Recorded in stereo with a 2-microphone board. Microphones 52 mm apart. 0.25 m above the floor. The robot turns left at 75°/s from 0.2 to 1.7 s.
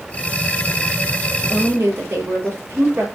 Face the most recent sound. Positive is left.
turn(degrees=-45)  # may be behind; listen again after turning